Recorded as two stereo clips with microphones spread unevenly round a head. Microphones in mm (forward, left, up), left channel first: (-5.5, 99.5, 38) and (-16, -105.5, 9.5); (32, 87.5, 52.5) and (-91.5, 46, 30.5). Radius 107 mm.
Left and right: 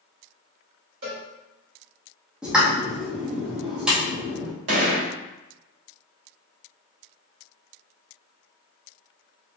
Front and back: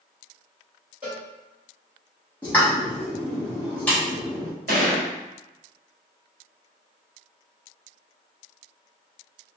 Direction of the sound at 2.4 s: 10° left.